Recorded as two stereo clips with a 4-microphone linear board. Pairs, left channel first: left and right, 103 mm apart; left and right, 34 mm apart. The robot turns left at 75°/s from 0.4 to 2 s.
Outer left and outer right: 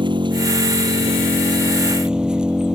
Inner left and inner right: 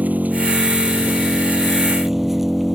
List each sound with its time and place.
0.0 s an engine running: 50° right; by 2.8 s 170° right